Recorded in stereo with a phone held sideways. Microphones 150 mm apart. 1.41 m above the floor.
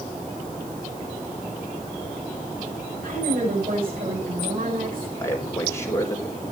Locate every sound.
3.0 s a woman speaking: 80° right, 9 m
5.2 s a man speaking: 20° left (ahead or behind), 4 m